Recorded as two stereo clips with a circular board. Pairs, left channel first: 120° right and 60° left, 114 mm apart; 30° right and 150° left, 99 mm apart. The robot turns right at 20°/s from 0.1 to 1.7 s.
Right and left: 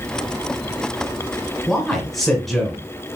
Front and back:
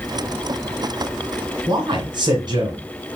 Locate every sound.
1.7 s a man speaking: 150° left, 1.8 m